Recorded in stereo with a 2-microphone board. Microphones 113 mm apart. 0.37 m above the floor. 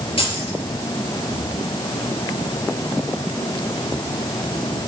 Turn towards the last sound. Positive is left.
turn(degrees=65)  # may be behind; listen again after turning